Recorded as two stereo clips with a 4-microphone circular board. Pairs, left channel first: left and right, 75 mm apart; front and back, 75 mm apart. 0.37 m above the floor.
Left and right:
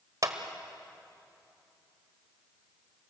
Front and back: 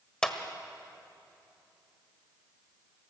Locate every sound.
0.2 s a clap: 75° right, 1.4 m